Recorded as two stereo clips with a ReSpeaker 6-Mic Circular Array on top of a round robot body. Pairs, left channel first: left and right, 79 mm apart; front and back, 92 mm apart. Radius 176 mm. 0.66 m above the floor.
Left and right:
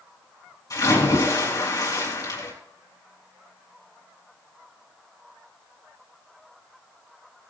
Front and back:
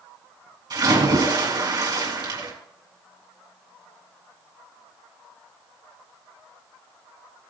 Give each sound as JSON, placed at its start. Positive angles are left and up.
{"t": 0.7, "sound": "a splash", "azimuth_deg": 135, "distance_m": 4.5}